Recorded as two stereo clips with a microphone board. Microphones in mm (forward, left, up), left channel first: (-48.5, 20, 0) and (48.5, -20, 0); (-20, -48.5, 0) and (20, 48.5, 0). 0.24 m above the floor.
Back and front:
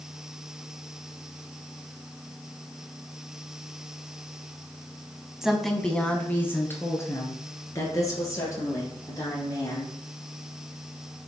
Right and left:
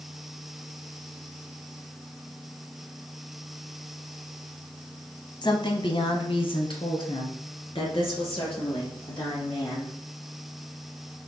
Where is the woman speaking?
105° right, 1.3 m; by 10.0 s 150° right, 5.5 m.